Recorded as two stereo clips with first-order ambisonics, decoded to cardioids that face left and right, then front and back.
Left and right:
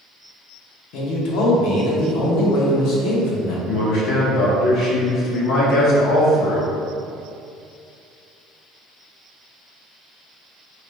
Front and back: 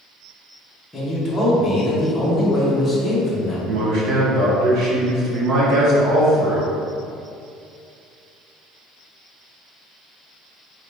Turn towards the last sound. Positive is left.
turn(degrees=135)